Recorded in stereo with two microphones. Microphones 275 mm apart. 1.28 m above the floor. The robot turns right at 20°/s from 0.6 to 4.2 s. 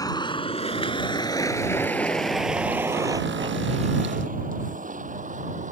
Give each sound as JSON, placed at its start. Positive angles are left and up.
{"t": 0.0, "sound": "a vehicle", "side_deg": 15}